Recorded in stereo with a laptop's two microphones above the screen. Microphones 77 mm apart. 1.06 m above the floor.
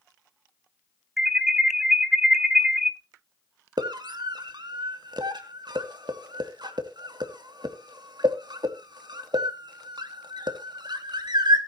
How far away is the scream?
About 2.5 m.